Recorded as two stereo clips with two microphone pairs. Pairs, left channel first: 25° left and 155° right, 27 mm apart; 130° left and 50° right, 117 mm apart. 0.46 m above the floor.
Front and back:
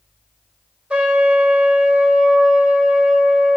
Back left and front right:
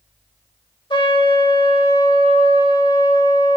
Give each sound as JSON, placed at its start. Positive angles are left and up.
{"t": 0.9, "sound": "a trumpet", "azimuth_deg": 170, "distance_m": 1.3}